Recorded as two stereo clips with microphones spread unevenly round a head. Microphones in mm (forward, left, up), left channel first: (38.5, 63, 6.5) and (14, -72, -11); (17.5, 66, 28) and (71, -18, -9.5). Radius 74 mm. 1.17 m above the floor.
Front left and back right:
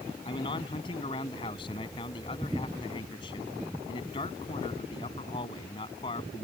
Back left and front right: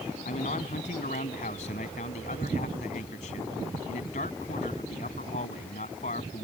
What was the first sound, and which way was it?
A man speaking, 140° left.